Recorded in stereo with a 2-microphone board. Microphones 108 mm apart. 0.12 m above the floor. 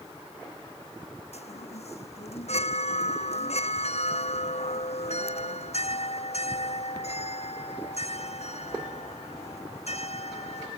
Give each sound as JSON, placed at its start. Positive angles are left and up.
{"t": 1.3, "sound": "a chime", "side_deg": 70}